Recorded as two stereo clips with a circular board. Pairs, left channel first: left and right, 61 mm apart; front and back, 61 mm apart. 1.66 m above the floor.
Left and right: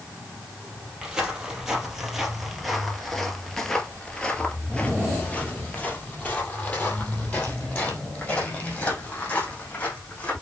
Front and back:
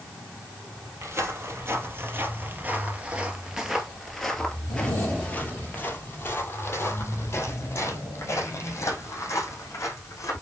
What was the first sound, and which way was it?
Footsteps, 165° right.